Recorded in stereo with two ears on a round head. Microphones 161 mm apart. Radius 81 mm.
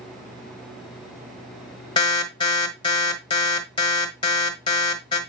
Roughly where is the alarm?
Left.